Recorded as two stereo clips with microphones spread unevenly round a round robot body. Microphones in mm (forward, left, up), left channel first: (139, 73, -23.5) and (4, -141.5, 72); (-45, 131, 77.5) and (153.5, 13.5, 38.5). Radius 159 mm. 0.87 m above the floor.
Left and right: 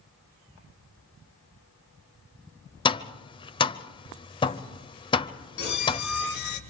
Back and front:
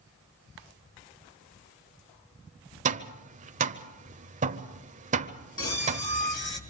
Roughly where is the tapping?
Ahead right.